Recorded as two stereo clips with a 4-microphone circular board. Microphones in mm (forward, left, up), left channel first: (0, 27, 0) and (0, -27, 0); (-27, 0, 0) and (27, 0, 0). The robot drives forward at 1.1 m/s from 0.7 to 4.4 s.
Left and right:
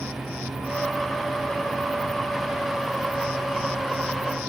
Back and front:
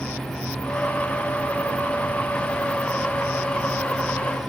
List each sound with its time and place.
Only background noise.